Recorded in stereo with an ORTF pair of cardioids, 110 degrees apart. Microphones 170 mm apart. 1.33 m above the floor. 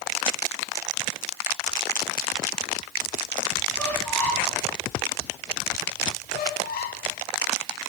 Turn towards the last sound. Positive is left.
turn(degrees=70)